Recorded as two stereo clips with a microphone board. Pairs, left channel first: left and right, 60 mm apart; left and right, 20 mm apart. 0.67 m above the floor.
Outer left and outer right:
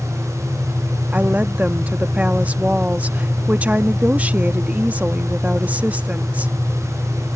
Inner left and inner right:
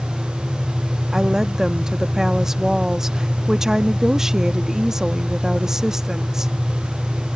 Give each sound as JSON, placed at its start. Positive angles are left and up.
{"t": 1.1, "sound": "a woman speaking", "side_deg": -25}